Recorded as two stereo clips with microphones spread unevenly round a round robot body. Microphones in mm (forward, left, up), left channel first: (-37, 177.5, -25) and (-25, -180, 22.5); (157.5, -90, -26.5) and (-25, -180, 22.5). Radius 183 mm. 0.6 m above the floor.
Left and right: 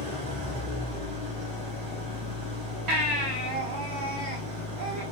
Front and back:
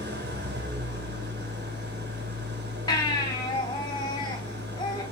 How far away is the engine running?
About 3 m.